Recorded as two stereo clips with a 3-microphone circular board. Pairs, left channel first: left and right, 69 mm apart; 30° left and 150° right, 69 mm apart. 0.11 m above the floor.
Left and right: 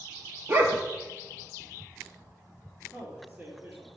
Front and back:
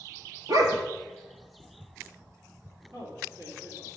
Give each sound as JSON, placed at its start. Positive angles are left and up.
{"t": 0.5, "sound": "a dog barking", "azimuth_deg": -145, "distance_m": 0.9}
{"t": 2.9, "sound": "a man speaking", "azimuth_deg": -150, "distance_m": 3.0}